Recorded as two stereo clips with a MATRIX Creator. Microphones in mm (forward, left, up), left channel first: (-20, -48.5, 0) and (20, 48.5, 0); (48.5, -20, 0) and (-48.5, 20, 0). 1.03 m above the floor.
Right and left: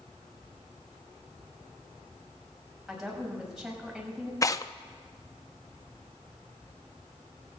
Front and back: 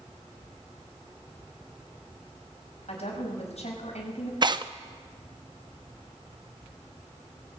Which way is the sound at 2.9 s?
20° right.